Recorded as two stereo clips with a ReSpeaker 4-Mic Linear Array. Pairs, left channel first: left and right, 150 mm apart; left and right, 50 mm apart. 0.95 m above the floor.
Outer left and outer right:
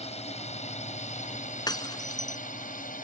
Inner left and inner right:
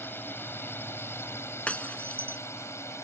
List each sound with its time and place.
0.0 s a drone: 45° left (ahead or behind); by 3.0 s 65° left (ahead or behind)
1.7 s breaking glass: 25° left (ahead or behind)